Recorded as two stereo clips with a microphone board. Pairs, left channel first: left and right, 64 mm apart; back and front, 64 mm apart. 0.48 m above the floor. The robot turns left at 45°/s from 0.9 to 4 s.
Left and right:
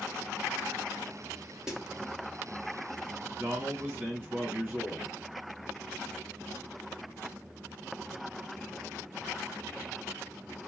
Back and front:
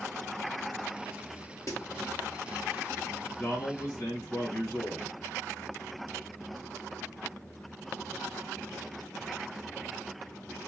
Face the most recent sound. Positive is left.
turn(degrees=-145)